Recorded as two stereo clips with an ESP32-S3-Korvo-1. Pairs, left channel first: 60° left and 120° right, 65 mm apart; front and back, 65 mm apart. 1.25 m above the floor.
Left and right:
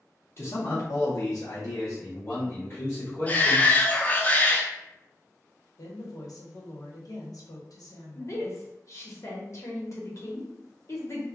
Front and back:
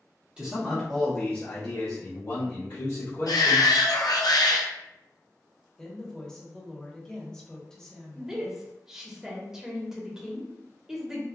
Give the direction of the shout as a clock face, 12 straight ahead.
12 o'clock.